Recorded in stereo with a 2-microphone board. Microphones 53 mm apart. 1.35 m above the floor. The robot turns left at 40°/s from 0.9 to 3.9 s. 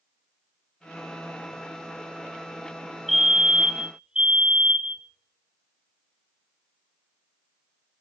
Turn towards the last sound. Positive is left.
turn(degrees=-35)